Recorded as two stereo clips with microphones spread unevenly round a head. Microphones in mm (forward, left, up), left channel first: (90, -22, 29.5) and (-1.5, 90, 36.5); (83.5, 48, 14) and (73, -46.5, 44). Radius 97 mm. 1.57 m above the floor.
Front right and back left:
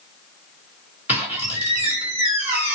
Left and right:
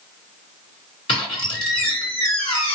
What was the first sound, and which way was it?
A squeak, 60° left.